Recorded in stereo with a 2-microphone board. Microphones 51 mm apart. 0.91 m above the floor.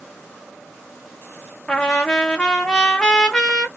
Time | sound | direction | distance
1.7 | a trumpet | 15° left (ahead or behind) | 0.8 m